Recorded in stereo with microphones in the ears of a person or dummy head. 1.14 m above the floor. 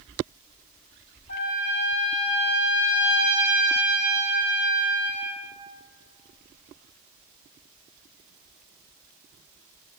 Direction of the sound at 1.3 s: 60° left (ahead or behind).